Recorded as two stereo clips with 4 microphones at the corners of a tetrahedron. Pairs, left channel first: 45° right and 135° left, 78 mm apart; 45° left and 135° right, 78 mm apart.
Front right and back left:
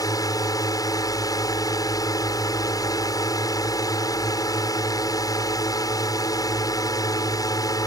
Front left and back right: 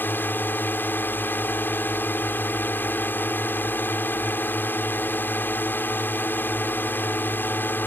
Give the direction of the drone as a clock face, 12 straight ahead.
1 o'clock.